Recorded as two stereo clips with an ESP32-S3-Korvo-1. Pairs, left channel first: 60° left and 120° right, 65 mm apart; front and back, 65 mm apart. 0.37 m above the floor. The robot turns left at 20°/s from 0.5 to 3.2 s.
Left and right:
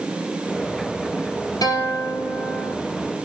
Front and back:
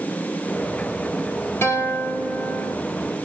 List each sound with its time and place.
1.6 s a guitar: 50° left, 2.5 m; by 2.8 s 30° left, 2.5 m